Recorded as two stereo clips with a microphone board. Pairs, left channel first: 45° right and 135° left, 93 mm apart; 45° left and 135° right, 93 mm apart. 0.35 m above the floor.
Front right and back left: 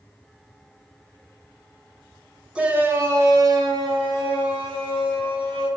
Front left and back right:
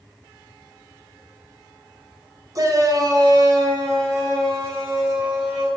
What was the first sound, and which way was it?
A shout, 150° right.